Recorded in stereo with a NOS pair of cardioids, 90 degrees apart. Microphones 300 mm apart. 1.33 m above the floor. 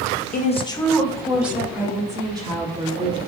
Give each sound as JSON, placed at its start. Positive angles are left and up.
{"t": 0.3, "sound": "a woman speaking", "azimuth_deg": 30, "distance_m": 1.1}